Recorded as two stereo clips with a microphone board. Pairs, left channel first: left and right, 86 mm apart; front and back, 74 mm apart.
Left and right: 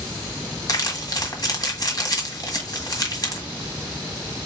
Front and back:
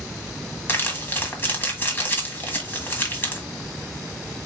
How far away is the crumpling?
About 1.7 m.